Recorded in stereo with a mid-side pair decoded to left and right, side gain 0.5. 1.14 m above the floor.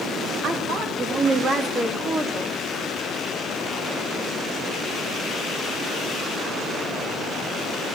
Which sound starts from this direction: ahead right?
A woman speaking, at 0.4 s.